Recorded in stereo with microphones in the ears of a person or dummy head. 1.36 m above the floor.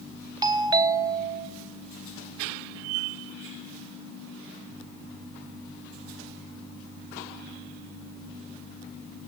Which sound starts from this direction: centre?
A doorbell, at 0.4 s.